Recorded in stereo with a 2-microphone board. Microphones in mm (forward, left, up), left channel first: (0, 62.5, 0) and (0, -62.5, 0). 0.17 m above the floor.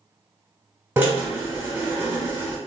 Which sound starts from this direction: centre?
A drill, at 1.0 s.